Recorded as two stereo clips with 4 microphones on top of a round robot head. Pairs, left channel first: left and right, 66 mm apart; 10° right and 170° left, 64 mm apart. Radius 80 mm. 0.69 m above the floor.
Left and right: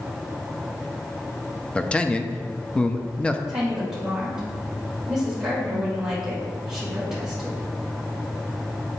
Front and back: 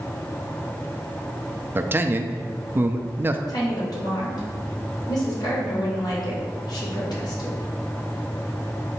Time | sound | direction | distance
1.8 | a man speaking | 150° left | 0.7 m
3.5 | a woman speaking | 10° right | 2.5 m